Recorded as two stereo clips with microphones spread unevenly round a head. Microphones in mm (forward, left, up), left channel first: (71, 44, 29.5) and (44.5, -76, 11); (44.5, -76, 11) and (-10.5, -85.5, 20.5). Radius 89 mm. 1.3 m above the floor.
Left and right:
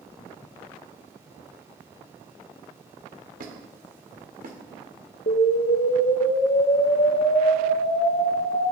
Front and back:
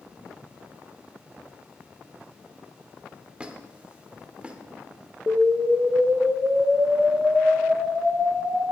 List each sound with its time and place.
3.4 s a squeak: 105° right, 2 m
5.3 s an explosion: 115° left, 1.1 m